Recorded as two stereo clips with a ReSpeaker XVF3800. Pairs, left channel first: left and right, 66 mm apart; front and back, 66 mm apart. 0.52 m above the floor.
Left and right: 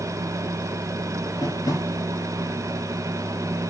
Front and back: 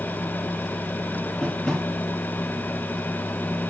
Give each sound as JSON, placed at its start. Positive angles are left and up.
{"t": 1.4, "sound": "tapping", "azimuth_deg": 75, "distance_m": 4.0}